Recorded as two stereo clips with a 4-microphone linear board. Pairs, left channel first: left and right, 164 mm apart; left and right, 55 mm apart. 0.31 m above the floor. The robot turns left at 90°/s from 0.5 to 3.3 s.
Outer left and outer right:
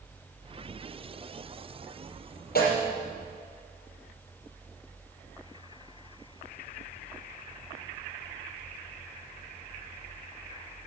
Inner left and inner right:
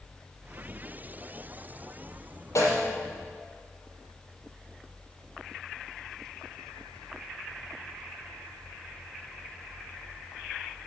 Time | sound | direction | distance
2.5 | a snare drum | 70° left (ahead or behind) | 5.5 m